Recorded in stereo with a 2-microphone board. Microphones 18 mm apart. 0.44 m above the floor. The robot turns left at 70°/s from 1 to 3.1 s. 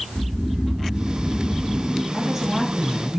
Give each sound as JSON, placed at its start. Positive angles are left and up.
{"t": 0.1, "sound": "snoring", "azimuth_deg": -90, "distance_m": 4.5}
{"t": 2.1, "sound": "a woman speaking", "azimuth_deg": -135, "distance_m": 5.0}